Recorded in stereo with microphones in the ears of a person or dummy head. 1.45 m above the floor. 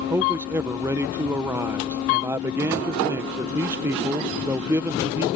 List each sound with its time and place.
0.1 s a man speaking: 15° right (ahead or behind)